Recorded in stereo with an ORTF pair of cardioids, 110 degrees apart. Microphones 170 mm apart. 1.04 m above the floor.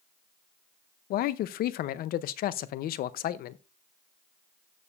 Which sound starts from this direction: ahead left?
A man speaking, at 1.1 s.